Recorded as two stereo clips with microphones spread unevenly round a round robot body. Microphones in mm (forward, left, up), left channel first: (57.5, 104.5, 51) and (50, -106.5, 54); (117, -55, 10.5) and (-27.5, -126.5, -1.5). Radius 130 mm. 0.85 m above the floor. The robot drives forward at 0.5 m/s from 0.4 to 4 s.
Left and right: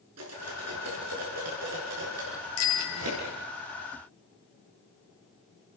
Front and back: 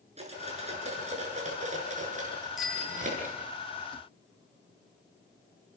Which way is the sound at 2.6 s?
115° left.